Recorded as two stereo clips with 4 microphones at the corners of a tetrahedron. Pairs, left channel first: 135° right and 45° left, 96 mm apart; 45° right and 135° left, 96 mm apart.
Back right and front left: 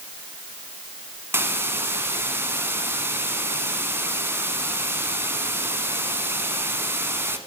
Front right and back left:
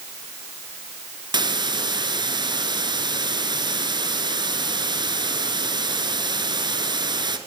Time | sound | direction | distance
1.3 | a hiss | 110° left | 1.1 m